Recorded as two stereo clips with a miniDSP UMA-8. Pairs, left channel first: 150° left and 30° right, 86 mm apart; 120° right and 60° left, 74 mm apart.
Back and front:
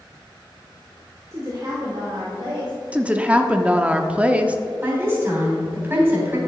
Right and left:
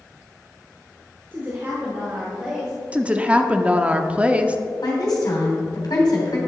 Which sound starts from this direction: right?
A woman speaking, at 4.8 s.